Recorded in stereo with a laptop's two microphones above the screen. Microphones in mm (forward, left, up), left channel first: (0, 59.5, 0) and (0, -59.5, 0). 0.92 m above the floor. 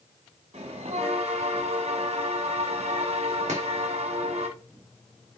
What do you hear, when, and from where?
0.5 s a bell: 65° right (ahead or behind), 1.4 m
3.5 s chopping: 80° right, 2.5 m